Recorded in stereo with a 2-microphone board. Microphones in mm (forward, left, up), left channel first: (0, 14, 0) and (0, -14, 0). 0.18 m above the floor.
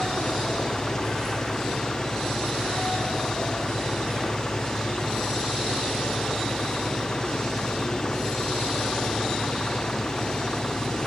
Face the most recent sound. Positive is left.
turn(degrees=25)  # may be behind; listen again after turning